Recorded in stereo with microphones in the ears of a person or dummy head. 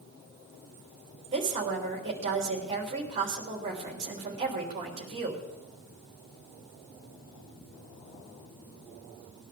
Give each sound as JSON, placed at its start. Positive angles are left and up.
{"t": 1.3, "sound": "a woman speaking", "side_deg": -30, "distance_m": 3.5}